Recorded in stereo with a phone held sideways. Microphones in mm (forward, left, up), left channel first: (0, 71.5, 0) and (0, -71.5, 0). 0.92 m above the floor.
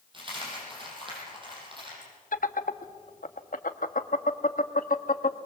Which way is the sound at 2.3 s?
75° left (ahead or behind).